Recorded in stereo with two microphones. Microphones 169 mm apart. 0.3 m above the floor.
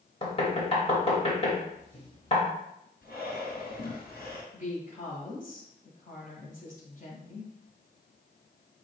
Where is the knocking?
35° left (ahead or behind), 0.9 m.